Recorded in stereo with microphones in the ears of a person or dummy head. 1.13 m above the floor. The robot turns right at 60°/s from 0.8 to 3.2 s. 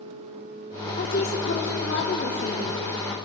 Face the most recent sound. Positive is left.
turn(degrees=-170)